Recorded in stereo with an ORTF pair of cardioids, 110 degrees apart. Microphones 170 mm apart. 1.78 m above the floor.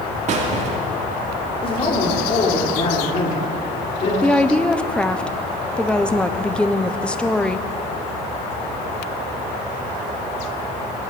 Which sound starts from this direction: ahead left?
A man speaking, at 1.6 s.